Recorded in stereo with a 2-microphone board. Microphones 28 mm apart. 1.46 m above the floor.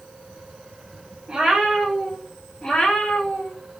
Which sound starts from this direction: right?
A cat meowing, at 1.3 s.